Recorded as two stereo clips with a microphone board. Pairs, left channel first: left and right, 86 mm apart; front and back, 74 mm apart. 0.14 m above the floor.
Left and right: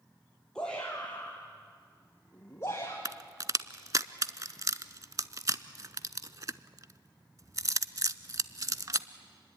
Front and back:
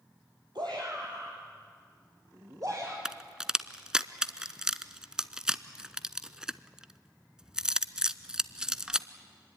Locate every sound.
0.6 s a shout: 170° left, 3.5 m; by 3.0 s 140° left, 3 m
3.0 s a crack: 105° right, 0.6 m